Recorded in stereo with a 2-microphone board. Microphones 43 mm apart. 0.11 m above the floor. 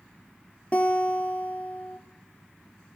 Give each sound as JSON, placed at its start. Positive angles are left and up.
{"t": 0.7, "sound": "a guitar", "side_deg": 35, "distance_m": 1.6}